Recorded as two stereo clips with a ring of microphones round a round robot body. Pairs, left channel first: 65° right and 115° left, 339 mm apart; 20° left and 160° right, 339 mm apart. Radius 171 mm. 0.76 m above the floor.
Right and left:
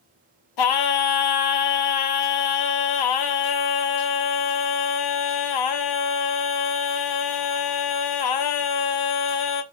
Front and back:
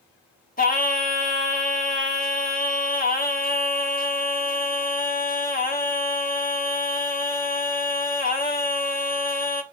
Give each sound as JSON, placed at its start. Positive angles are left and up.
{"t": 0.6, "sound": "singing", "azimuth_deg": -45, "distance_m": 1.2}